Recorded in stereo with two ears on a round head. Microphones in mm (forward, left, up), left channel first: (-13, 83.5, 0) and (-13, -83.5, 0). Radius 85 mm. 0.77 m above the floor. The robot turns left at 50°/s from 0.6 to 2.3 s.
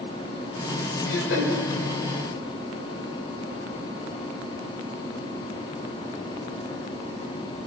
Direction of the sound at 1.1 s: 75° left (ahead or behind).